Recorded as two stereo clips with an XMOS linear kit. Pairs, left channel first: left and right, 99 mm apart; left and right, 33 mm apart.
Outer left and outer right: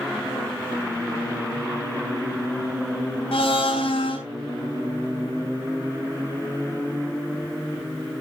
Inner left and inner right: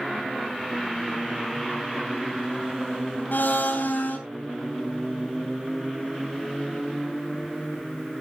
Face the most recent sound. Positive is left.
turn(degrees=70)  # may be behind; listen again after turning